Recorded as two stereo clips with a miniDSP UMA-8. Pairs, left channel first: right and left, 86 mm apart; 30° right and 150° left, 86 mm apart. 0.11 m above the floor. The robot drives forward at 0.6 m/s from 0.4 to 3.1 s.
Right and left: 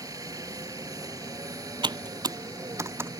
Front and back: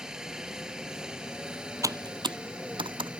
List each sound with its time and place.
0.0 s a helicopter: 70° left; by 3.2 s 75° left
1.8 s typing on a keyboard: 105° left; by 3.1 s 150° left